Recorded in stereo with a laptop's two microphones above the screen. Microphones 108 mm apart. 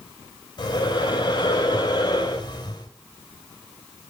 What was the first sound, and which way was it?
Breathing, 45° left (ahead or behind).